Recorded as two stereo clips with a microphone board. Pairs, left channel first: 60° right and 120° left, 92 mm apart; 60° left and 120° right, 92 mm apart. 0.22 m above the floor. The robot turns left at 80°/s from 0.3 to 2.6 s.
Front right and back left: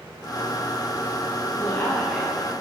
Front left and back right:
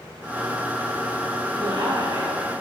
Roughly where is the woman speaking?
Right.